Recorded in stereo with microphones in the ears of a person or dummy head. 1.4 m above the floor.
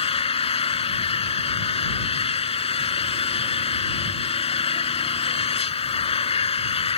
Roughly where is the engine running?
Left.